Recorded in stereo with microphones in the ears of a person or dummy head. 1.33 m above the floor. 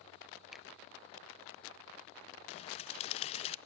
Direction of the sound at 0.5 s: Centre (ahead or behind).